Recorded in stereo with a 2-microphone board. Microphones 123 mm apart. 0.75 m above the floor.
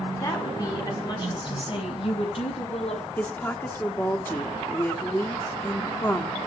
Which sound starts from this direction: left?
A woman speaking, at 0.2 s.